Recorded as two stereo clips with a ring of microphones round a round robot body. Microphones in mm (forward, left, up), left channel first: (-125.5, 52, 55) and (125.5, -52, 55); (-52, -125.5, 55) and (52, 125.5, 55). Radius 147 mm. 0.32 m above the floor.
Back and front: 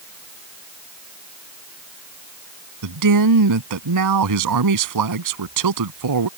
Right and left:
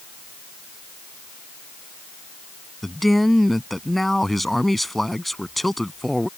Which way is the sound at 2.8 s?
25° right.